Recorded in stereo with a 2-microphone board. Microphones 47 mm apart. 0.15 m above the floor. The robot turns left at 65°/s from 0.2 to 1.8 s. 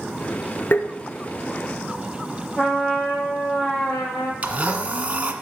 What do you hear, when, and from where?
0.7 s tapping: 50° left (ahead or behind), 1.1 m; by 0.9 s 55° left (ahead or behind), 1.1 m
2.6 s a trumpet: 30° left (ahead or behind), 6 m
4.4 s a blender: 30° right (ahead or behind), 1.6 m